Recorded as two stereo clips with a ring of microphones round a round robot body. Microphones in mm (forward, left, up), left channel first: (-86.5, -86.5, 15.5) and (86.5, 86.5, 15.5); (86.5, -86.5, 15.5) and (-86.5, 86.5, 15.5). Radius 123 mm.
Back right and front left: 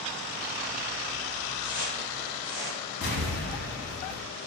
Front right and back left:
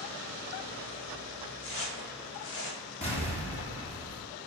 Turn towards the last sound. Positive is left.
turn(degrees=-105)